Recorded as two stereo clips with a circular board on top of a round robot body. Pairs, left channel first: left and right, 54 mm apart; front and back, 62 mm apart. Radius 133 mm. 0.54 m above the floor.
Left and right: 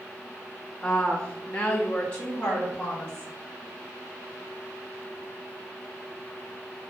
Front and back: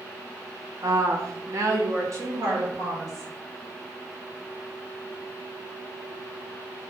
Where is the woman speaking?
165° left, 1.1 m; by 3.3 s 150° left, 2.5 m.